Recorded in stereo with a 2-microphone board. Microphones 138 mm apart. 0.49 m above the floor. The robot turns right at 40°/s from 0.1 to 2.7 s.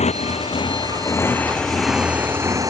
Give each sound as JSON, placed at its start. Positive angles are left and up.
{"t": 0.0, "sound": "a motorcycle", "side_deg": 55}